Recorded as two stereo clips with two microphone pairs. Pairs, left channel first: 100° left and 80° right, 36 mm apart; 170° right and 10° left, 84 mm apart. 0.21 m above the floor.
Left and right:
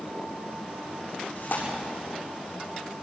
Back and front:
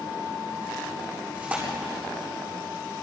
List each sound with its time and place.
1.4 s tearing paper: 80° left, 8.5 m